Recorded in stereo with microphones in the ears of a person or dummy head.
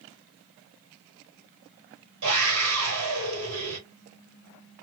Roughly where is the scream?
Right.